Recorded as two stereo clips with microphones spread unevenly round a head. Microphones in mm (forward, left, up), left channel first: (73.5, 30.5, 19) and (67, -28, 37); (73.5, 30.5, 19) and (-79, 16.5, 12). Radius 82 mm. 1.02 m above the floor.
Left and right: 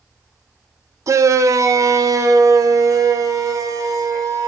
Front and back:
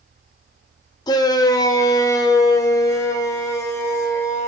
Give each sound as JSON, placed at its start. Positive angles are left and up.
{"t": 1.1, "sound": "a shout", "azimuth_deg": -60, "distance_m": 1.3}